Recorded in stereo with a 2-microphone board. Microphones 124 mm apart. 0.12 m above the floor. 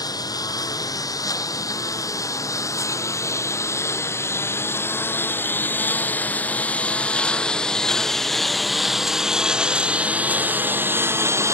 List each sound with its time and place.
0.0 s a lawn mower: 30° left (ahead or behind); by 11.5 s 20° right (ahead or behind)